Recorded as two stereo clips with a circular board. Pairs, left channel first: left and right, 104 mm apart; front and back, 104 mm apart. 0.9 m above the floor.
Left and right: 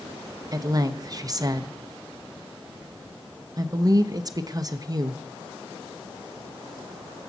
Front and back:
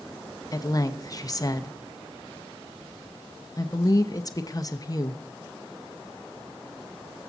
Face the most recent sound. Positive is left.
turn(degrees=-45)